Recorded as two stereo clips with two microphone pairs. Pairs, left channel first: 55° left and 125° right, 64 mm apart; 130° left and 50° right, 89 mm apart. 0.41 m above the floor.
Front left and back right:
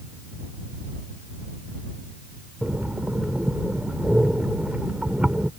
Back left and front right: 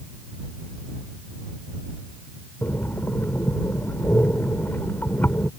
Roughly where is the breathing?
Behind.